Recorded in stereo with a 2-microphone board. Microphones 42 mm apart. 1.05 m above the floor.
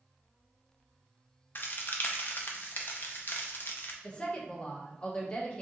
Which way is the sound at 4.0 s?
25° left (ahead or behind).